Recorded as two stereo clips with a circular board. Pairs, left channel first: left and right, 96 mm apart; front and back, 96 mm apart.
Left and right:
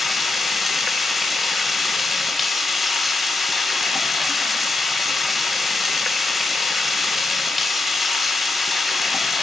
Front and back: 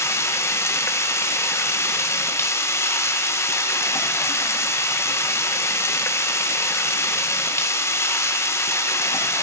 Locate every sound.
0.0 s running water: 5° right, 0.8 m